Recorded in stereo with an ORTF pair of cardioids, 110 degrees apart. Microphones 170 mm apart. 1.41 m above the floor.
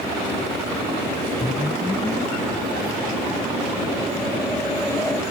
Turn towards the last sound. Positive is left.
turn(degrees=10)